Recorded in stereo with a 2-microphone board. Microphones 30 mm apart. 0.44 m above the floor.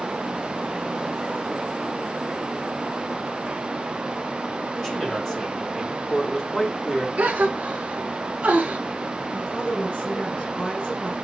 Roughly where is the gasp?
Right.